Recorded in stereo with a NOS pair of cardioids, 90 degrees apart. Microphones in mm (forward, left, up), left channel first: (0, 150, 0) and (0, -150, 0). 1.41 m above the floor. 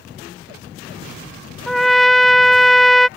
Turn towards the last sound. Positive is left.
turn(degrees=0)